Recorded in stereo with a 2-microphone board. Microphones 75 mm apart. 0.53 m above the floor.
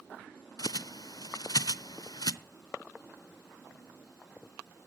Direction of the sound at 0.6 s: 60° left (ahead or behind).